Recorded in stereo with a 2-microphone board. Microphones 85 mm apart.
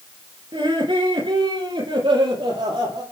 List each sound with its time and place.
0.5 s laughter: 80° right, 5 m; by 3.0 s 85° right, 8 m